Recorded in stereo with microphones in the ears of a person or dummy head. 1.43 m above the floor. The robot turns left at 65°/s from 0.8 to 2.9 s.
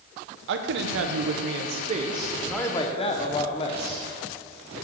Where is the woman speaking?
70° right, 0.6 m; by 4.0 s 155° left, 0.6 m.